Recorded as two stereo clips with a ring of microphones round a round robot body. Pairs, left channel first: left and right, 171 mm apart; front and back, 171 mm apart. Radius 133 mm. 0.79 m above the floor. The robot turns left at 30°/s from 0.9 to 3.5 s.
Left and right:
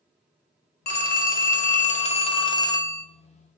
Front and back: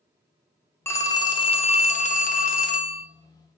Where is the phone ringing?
75° left, 0.5 m; by 3.0 s 10° left, 0.5 m.